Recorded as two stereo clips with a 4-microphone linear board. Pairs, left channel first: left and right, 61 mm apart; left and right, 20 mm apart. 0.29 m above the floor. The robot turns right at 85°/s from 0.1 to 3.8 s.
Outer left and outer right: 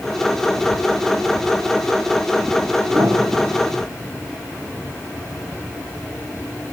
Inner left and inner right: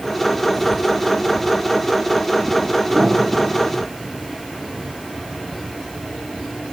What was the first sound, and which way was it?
A piano, 80° right.